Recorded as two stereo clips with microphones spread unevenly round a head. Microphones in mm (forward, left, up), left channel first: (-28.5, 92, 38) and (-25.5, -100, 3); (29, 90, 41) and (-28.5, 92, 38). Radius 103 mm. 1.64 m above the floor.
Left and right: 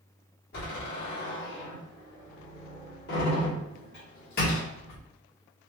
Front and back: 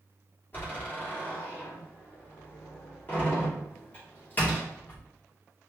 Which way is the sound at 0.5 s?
50° left.